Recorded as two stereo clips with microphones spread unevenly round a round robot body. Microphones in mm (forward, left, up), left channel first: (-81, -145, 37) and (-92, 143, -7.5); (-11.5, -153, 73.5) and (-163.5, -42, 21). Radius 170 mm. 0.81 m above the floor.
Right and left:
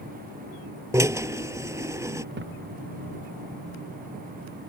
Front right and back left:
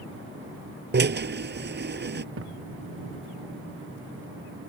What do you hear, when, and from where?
0.9 s a drill: 175° left
2.4 s a thud: 145° left